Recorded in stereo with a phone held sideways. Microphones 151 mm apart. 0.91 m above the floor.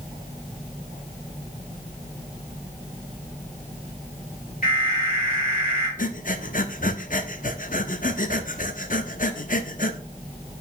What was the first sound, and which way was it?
An alarm, 65° left (ahead or behind).